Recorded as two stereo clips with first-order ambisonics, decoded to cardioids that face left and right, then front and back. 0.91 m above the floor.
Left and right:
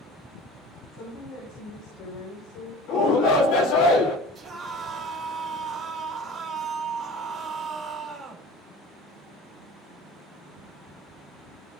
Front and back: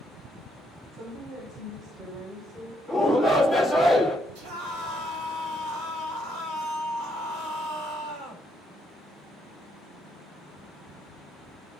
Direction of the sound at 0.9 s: 115° left.